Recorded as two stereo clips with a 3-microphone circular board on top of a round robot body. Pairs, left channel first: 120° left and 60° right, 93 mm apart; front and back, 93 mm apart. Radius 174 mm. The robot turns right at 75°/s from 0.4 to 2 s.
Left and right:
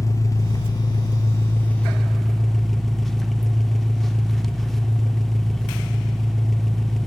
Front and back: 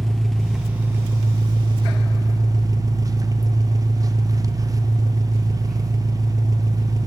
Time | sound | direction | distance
0.0 | an engine running | 85° left | 0.9 m